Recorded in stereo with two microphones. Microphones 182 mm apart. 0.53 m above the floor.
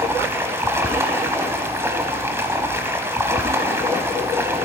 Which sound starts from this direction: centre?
Running water, at 0.0 s.